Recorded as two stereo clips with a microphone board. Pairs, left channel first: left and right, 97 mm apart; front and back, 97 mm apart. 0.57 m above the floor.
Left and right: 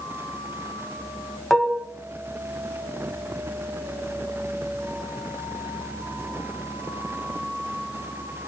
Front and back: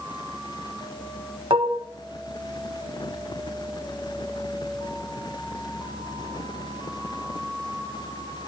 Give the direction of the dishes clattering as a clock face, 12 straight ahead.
6 o'clock.